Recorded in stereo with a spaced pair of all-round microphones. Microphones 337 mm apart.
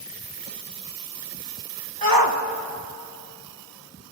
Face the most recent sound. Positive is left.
turn(degrees=-80)